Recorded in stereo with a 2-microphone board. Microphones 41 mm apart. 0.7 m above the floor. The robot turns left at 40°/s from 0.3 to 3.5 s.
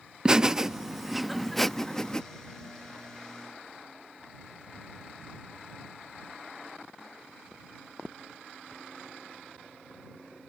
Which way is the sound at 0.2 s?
20° right (ahead or behind).